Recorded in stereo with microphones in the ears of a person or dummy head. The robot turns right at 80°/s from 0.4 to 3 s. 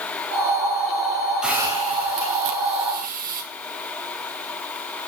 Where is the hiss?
175° right, 3 m; by 3.4 s 45° right, 3 m.